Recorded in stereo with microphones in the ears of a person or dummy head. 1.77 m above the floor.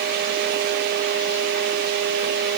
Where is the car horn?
I don't hear a car horn.